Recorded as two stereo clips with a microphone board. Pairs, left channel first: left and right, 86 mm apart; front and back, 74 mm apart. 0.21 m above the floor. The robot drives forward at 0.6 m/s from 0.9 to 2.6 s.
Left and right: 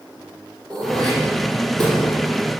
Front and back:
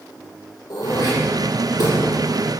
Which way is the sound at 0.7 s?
10° left.